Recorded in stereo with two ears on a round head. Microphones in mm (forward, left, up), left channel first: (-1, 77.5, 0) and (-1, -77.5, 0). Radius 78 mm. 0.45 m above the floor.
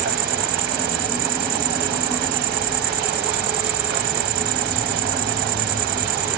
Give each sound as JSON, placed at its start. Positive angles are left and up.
{"t": 0.0, "sound": "an insect", "side_deg": -65}